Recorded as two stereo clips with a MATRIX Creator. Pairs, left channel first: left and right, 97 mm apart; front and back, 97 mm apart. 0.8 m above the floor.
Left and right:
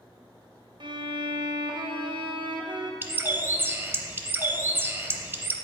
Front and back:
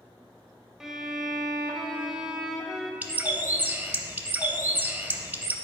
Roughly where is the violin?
Right.